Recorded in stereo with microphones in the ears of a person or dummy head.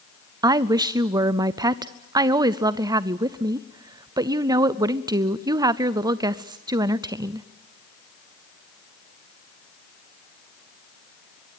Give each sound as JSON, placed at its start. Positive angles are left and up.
{"t": 0.4, "sound": "a woman speaking", "side_deg": -20, "distance_m": 0.6}